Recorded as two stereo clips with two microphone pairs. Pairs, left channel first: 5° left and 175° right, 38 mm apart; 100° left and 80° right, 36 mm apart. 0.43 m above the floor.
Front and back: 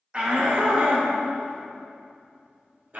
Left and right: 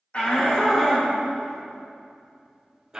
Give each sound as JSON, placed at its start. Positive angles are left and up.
{"t": 0.1, "sound": "a shout", "azimuth_deg": 125, "distance_m": 1.2}